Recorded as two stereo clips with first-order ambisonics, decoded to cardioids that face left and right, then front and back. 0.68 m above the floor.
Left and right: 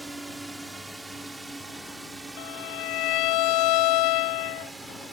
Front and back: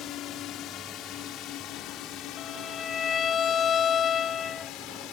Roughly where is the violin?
Ahead left.